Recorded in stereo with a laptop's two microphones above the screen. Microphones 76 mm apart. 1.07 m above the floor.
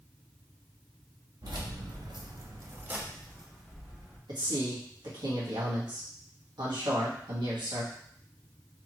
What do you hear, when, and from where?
1.4 s keys jangling: 60° right (ahead or behind), 0.9 m; by 4.2 s 5° left (ahead or behind), 1.4 m
4.3 s a man speaking: 70° right (ahead or behind), 1.6 m